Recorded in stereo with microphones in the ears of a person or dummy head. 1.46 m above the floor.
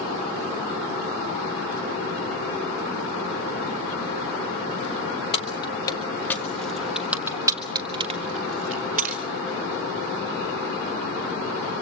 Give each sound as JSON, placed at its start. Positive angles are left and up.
{"t": 5.3, "sound": "keys jangling", "side_deg": 30, "distance_m": 1.5}